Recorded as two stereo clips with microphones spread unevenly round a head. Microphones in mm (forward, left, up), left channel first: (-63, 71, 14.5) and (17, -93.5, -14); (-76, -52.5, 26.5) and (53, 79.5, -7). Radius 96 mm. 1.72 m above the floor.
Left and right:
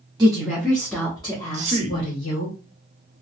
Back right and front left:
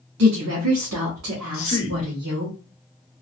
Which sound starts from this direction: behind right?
A man speaking, at 1.5 s.